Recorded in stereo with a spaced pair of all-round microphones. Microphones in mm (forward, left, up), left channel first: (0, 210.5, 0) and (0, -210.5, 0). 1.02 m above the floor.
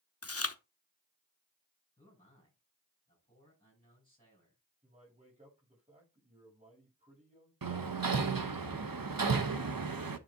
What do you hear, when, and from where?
0.2 s chewing: 35° left (ahead or behind), 0.7 m
2.0 s a man speaking: 15° left (ahead or behind), 6 m
4.8 s a man speaking: 20° right (ahead or behind), 6.5 m
7.6 s hammering: 60° right (ahead or behind), 0.7 m